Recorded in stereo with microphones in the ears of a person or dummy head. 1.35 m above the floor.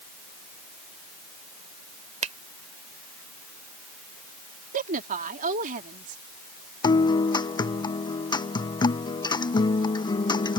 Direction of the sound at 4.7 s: 55° right (ahead or behind).